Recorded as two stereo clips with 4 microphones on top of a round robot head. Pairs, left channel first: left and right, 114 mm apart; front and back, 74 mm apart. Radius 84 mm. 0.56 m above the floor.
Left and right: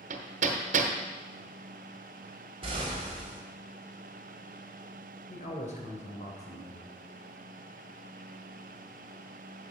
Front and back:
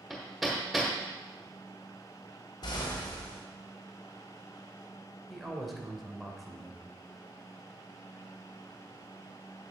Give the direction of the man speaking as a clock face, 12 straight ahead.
9 o'clock.